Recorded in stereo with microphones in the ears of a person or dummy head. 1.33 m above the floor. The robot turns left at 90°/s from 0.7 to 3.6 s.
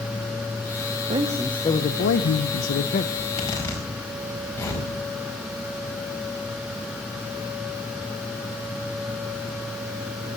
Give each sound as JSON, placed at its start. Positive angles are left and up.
{"t": 1.1, "sound": "a man speaking", "azimuth_deg": -150, "distance_m": 0.9}
{"t": 3.1, "sound": "a zipper", "side_deg": 55, "distance_m": 5.0}